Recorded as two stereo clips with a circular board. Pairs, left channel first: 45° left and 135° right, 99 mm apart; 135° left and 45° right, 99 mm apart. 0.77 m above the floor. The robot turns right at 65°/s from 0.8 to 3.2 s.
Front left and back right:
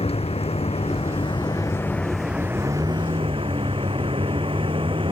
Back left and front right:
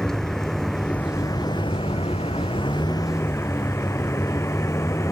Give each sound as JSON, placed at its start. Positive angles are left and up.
{"t": 0.0, "sound": "a vehicle", "azimuth_deg": 50}